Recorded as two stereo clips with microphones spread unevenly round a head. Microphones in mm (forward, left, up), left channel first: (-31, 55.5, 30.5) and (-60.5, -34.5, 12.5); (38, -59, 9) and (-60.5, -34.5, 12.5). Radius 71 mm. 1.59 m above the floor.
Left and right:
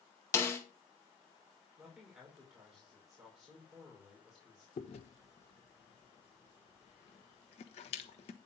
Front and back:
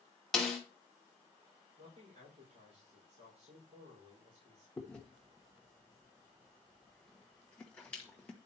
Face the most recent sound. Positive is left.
turn(degrees=70)